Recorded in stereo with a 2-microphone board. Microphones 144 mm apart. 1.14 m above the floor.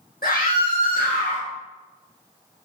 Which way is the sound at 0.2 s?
80° left.